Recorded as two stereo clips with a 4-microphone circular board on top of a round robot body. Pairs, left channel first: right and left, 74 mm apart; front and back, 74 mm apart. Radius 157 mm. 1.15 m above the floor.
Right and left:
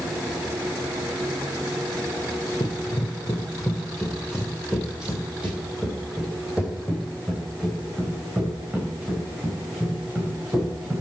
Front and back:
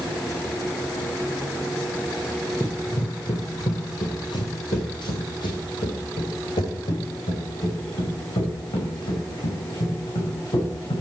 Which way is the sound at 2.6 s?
55° right.